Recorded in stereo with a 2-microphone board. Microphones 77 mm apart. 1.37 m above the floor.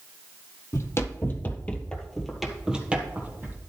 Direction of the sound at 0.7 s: 40° left (ahead or behind).